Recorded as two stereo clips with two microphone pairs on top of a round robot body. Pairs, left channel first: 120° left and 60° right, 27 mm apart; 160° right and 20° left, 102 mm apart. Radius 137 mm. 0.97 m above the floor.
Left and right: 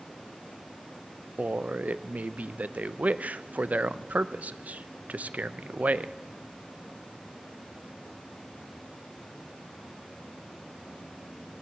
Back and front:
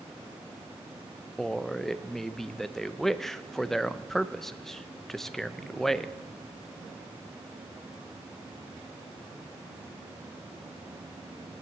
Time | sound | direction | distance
1.4 | a man speaking | 75° right | 0.7 m